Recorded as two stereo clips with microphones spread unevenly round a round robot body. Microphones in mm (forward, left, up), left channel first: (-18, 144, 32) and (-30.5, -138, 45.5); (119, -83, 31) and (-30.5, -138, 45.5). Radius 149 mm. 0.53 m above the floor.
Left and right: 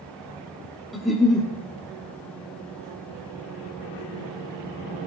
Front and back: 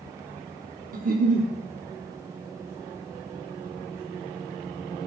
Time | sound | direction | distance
0.9 | a giggle | 175° left | 1.1 m